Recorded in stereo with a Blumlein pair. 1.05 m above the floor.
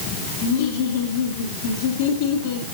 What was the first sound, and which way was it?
Laughter, 55° left.